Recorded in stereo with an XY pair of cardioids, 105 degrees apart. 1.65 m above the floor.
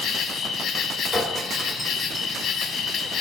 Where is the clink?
5° right, 4.5 m.